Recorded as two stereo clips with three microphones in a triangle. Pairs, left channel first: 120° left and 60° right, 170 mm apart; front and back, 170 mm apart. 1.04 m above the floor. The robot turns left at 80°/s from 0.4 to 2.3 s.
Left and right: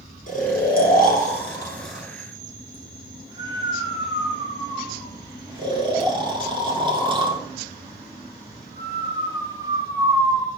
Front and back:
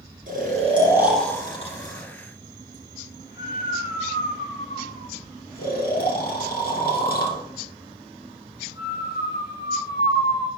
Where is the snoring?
150° left, 2 m; by 10.5 s straight ahead, 2 m.